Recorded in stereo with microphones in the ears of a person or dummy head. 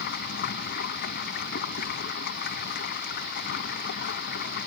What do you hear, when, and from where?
0.0 s running water: 60° left (ahead or behind)